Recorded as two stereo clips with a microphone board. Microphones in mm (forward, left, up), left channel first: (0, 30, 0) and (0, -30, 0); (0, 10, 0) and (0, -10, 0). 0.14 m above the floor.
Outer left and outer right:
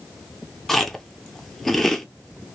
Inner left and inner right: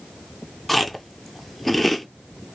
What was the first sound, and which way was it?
Chewing, 5° left (ahead or behind).